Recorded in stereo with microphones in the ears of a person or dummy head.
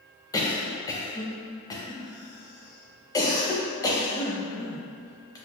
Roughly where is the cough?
Centre.